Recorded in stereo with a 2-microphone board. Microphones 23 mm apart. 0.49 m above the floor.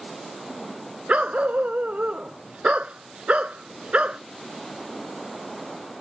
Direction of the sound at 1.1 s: 70° right (ahead or behind).